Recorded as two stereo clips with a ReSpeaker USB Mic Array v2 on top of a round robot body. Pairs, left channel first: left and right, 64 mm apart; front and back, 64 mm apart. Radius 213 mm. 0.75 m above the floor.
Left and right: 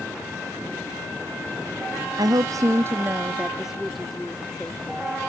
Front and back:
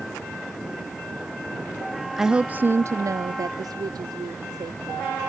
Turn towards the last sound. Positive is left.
turn(degrees=165)